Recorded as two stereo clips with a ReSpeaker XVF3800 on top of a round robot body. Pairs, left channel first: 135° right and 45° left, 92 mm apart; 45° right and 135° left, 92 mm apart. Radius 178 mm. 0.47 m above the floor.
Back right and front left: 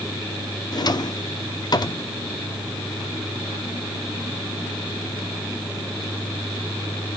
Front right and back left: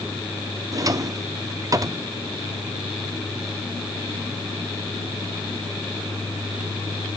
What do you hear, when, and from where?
0.7 s a drawer: 175° right, 1.0 m